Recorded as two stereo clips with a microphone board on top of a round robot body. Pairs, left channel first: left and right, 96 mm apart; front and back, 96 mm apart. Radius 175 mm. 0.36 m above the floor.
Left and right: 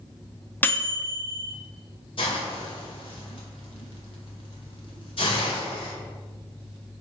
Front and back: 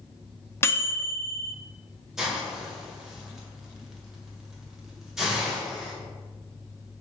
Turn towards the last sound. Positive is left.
turn(degrees=95)